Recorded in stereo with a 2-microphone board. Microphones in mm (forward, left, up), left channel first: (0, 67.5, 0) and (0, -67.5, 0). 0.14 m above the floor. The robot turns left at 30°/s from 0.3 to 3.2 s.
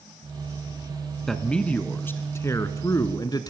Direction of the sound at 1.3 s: 175° left.